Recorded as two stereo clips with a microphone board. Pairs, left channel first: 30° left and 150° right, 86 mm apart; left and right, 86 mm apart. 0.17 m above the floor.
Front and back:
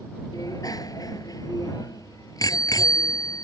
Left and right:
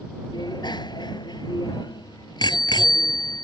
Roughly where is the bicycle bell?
Ahead left.